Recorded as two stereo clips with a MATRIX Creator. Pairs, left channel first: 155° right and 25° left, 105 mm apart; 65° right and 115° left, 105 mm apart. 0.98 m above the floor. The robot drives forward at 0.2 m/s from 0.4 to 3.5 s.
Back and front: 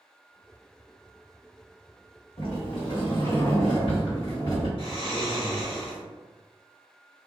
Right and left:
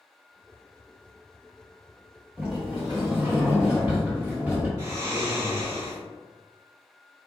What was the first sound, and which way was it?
A sliding door, 175° right.